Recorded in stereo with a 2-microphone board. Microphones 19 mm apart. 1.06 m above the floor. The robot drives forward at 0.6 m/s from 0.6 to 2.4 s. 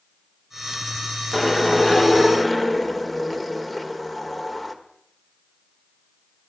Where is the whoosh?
10° left (ahead or behind), 0.8 m; by 4.8 s 5° left (ahead or behind), 1.4 m.